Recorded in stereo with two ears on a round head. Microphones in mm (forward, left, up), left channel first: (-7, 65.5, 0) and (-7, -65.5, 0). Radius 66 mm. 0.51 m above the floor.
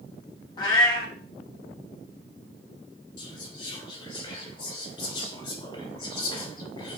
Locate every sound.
0.6 s a cat meowing: 30° left (ahead or behind), 1.0 m
3.2 s whispering: 35° left (ahead or behind), 2 m